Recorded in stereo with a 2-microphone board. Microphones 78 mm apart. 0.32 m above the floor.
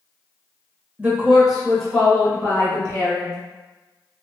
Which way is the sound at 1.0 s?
20° right (ahead or behind).